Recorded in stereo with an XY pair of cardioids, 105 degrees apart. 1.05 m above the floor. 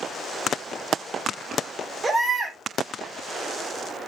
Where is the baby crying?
30° right, 2.5 m.